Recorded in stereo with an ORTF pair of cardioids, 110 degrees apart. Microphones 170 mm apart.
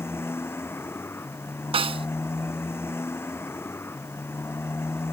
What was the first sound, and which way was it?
A motorcycle, 15° left.